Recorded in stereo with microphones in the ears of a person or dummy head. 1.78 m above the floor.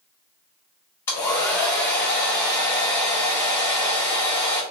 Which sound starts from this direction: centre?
A hair dryer, at 1.1 s.